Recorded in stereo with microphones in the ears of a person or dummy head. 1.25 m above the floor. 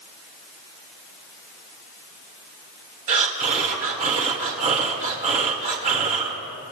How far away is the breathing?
About 1.9 m.